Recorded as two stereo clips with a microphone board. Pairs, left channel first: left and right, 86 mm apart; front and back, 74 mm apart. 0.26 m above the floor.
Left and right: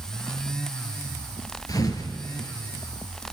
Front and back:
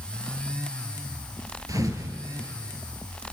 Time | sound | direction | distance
1.7 | a thud | 140° left | 2.5 m